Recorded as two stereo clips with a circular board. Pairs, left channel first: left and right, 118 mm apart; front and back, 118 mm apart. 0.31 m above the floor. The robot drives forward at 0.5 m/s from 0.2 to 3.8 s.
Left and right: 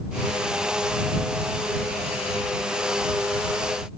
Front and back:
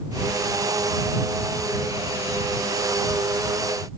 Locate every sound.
Only background noise.